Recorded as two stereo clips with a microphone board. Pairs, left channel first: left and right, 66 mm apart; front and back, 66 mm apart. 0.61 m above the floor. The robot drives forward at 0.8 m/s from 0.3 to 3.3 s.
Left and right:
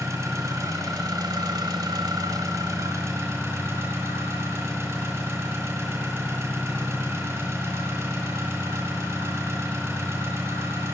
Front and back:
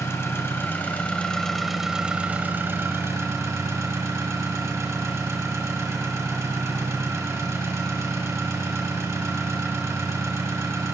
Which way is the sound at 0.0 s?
50° right.